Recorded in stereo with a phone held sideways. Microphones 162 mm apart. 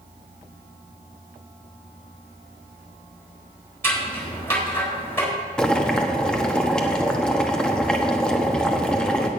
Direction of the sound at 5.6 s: 5° left (ahead or behind).